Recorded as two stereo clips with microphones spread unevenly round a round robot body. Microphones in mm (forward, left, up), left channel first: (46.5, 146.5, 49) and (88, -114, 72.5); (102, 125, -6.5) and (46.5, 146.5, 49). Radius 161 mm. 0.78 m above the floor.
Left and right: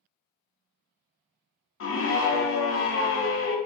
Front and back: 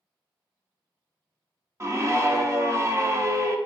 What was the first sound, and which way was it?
A scream, 85° left.